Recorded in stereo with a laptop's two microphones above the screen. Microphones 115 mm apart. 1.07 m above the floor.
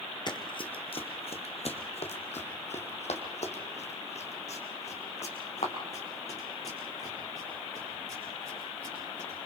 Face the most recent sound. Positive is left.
turn(degrees=60)  # may be behind; listen again after turning